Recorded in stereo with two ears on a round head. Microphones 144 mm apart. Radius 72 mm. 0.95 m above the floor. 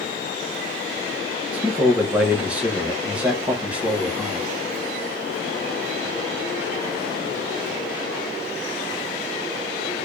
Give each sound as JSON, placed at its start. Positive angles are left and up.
{"t": 1.5, "sound": "a man speaking", "side_deg": -10, "distance_m": 0.7}